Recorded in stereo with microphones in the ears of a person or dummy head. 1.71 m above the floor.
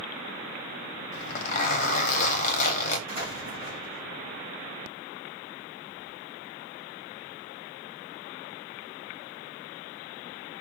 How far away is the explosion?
About 3 m.